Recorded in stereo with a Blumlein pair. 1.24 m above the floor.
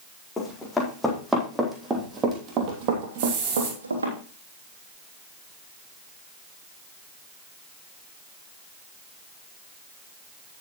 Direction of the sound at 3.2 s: 45° right.